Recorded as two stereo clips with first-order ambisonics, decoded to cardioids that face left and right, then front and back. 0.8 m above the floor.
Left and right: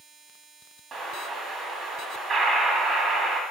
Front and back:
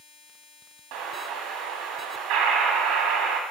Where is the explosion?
160° right, 1.8 m.